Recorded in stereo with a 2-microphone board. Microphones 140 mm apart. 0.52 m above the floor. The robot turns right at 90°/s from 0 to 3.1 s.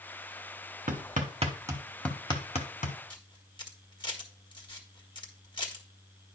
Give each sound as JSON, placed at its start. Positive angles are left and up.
{"t": 0.9, "sound": "hammering", "side_deg": -80, "distance_m": 1.3}
{"t": 3.1, "sound": "a camera shutter", "side_deg": 35, "distance_m": 1.5}